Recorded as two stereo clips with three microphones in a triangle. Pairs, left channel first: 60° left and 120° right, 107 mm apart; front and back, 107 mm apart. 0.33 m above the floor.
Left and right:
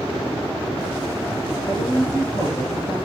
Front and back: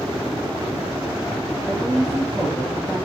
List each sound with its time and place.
1.6 s a woman speaking: 115° left, 3.5 m